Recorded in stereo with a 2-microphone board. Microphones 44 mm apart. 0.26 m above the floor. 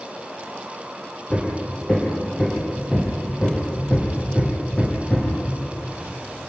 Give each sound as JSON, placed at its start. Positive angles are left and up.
{"t": 1.3, "sound": "hammering", "side_deg": 20, "distance_m": 7.0}